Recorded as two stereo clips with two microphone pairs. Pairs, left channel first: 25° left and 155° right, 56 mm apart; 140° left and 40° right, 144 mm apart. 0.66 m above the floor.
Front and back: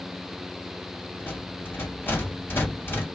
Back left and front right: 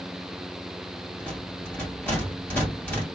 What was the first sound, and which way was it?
A rattle, 65° left.